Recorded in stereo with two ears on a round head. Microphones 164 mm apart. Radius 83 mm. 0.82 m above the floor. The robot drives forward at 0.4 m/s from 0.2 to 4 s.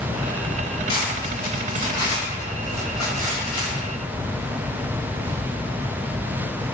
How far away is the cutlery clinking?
About 1.9 m.